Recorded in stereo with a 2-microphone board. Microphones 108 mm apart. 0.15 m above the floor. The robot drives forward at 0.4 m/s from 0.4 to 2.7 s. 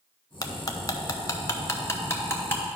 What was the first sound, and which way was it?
Cutlery clinking, 35° left (ahead or behind).